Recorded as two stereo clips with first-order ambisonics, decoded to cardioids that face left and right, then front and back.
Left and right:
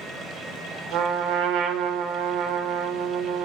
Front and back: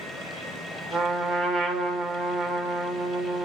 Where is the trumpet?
100° right, 1.9 m.